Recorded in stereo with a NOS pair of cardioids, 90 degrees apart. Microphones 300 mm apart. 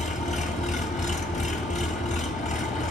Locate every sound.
0.0 s an engine running: 25° left, 1.8 m